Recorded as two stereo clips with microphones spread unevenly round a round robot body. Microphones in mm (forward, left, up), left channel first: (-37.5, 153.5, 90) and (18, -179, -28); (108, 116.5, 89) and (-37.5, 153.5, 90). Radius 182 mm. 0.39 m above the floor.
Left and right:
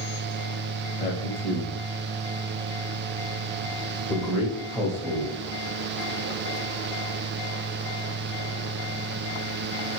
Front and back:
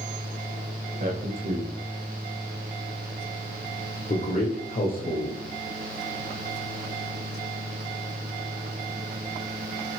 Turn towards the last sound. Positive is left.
turn(degrees=0)